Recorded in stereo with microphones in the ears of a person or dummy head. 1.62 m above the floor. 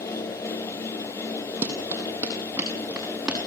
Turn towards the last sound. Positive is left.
turn(degrees=-10)  # may be behind; listen again after turning